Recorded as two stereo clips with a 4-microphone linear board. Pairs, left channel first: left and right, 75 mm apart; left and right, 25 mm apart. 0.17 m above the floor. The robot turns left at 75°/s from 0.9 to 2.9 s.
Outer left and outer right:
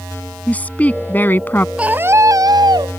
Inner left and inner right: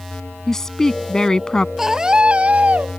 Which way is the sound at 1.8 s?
15° right.